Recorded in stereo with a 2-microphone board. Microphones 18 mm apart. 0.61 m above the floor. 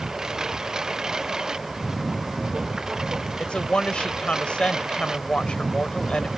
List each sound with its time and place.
0.0 s a lawn mower: 35° right (ahead or behind)
3.4 s a woman speaking: 75° left (ahead or behind)